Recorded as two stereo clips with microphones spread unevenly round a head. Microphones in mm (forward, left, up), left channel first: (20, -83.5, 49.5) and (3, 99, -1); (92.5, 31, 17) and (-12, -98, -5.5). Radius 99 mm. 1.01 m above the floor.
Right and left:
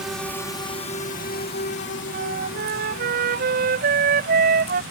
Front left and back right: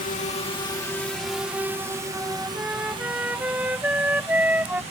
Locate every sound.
0.0 s a drone: 15° left; by 4.9 s 80° right
2.1 s a flute: 145° left